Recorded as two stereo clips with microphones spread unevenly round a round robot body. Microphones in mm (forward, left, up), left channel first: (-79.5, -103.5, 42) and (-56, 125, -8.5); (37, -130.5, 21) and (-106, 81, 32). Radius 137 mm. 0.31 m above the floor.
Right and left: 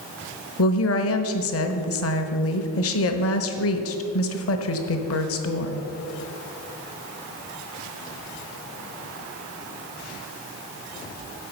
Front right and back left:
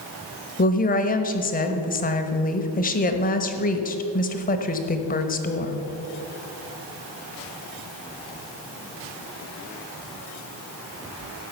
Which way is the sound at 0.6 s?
100° right.